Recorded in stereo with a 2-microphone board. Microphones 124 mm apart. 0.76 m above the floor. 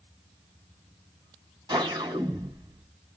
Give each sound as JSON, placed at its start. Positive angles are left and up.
{"t": 1.7, "sound": "a whoosh", "side_deg": -35, "distance_m": 2.5}